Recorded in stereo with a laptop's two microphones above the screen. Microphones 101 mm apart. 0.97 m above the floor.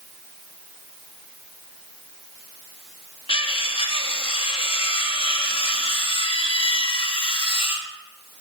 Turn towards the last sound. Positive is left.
turn(degrees=60)  # may be behind; listen again after turning